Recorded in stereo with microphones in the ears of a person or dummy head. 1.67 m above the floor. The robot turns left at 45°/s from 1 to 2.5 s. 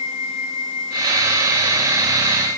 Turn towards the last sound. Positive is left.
No sound to turn to.